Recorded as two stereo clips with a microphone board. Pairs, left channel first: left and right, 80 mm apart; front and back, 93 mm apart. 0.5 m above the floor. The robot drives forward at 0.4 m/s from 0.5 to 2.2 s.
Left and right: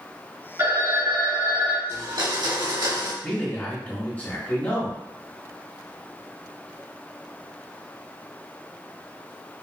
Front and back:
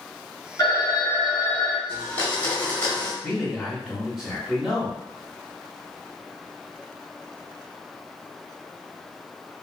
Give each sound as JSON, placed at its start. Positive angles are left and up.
{"t": 0.6, "sound": "a phone ringing", "azimuth_deg": -45, "distance_m": 1.4}
{"t": 1.9, "sound": "a blender", "azimuth_deg": -65, "distance_m": 1.2}
{"t": 3.2, "sound": "a man speaking", "azimuth_deg": 105, "distance_m": 1.3}